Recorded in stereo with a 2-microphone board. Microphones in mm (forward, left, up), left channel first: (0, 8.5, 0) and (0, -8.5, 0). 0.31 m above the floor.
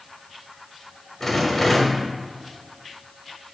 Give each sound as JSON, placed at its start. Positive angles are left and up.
{"t": 1.2, "sound": "a rattle", "side_deg": 30, "distance_m": 0.9}